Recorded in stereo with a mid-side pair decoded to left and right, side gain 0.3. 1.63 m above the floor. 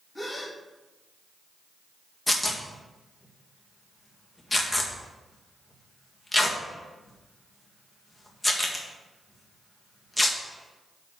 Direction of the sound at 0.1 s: 20° left.